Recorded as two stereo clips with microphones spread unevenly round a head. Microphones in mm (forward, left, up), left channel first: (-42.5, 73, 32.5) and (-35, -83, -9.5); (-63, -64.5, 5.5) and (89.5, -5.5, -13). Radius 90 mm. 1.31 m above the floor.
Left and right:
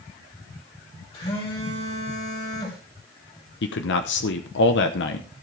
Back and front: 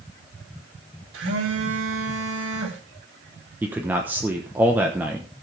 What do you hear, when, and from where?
1.1 s a phone buzzing: 30° left, 4.5 m
3.6 s a man speaking: 100° left, 1.0 m